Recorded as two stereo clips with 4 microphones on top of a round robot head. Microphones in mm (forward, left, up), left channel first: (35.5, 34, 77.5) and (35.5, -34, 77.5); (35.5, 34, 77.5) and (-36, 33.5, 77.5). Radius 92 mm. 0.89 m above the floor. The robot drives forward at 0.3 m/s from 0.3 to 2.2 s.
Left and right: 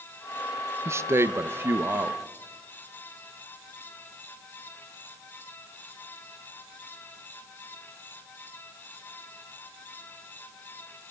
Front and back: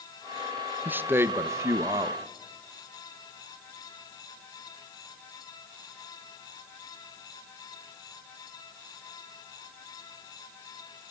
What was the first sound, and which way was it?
A man speaking, 125° right.